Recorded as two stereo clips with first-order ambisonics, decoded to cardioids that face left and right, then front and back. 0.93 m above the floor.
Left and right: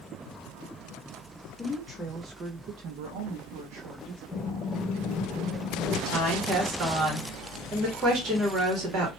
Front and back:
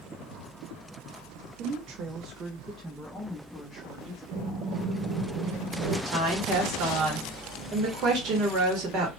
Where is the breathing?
160° left, 1.8 m.